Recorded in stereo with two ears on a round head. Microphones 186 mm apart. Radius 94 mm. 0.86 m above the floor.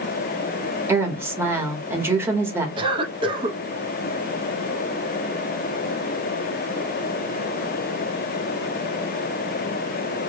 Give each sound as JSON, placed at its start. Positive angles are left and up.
{"t": 0.9, "sound": "a woman speaking", "side_deg": -10, "distance_m": 1.2}
{"t": 2.8, "sound": "a cough", "side_deg": -25, "distance_m": 0.7}